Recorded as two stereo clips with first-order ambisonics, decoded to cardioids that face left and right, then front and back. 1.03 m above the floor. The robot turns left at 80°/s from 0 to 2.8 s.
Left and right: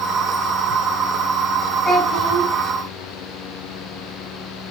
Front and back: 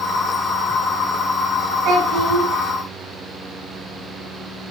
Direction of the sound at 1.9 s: 160° left.